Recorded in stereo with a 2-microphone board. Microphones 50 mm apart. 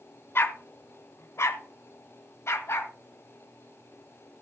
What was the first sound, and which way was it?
A dog barking, 50° left (ahead or behind).